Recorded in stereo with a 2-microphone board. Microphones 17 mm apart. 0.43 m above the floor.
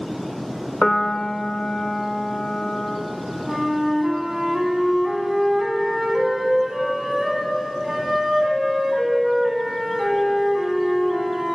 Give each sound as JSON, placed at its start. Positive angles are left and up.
{"t": 0.8, "sound": "a piano", "side_deg": 40, "distance_m": 0.9}
{"t": 3.5, "sound": "a flute", "side_deg": -20, "distance_m": 1.6}